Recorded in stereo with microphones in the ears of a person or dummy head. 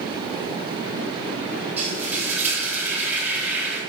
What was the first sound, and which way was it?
Frying, 10° right (ahead or behind).